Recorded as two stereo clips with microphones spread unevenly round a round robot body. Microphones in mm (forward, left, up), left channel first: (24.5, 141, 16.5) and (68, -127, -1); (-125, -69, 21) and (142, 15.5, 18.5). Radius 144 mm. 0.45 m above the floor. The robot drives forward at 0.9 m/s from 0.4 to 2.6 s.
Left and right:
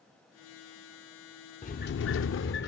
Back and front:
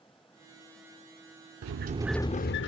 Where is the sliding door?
40° left; by 2.7 s 150° left.